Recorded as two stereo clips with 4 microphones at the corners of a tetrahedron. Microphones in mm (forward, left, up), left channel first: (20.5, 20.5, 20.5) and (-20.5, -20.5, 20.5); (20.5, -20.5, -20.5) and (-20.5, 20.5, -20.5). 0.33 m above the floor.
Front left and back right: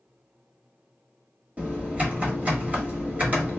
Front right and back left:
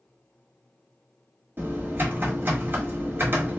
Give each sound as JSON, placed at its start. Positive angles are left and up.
{"t": 1.6, "sound": "typing on a keyboard", "azimuth_deg": 170, "distance_m": 1.2}